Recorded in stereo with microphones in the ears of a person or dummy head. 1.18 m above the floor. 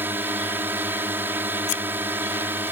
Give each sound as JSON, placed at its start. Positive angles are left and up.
{"t": 0.0, "sound": "a drone", "side_deg": -15}
{"t": 1.7, "sound": "scissors", "side_deg": 40}